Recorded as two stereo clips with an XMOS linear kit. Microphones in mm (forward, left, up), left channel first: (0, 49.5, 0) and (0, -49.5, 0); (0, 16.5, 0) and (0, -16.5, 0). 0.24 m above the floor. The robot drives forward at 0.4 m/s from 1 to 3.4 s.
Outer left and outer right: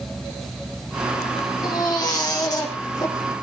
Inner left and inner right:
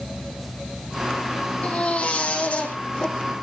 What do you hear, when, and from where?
1.6 s a baby crying: 35° left (ahead or behind), 5.5 m